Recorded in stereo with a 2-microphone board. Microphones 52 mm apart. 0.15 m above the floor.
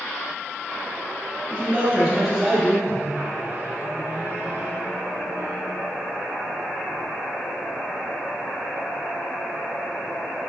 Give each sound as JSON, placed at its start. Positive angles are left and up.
{"t": 1.5, "sound": "a man speaking", "side_deg": -30, "distance_m": 1.6}
{"t": 2.9, "sound": "a microwave", "side_deg": -45, "distance_m": 1.7}